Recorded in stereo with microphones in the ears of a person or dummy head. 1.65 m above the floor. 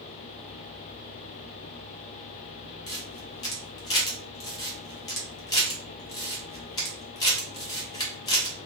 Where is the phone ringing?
I don't hear a phone ringing.